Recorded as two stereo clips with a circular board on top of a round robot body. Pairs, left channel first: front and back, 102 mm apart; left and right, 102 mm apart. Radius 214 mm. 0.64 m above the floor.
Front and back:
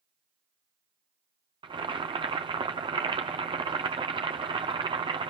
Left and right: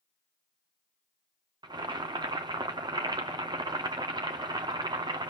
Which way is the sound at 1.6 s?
140° right.